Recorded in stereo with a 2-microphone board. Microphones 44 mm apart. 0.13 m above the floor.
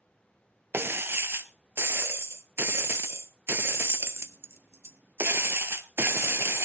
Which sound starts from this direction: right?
Breaking glass, at 0.7 s.